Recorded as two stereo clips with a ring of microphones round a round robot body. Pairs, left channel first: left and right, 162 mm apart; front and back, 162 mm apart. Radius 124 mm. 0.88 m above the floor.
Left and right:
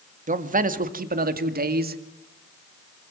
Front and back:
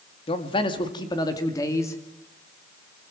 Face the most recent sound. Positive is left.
turn(degrees=-75)